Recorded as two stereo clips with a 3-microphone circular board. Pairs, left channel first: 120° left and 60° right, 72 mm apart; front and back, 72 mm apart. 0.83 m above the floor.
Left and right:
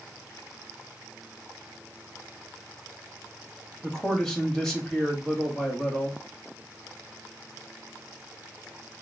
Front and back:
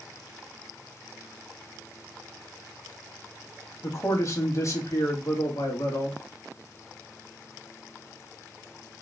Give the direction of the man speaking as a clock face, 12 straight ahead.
11 o'clock.